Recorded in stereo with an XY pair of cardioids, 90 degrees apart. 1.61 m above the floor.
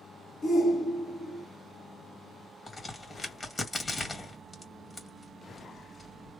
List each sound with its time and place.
0.4 s a shout: 65° left, 1.8 m
2.7 s a crack: 35° left, 2 m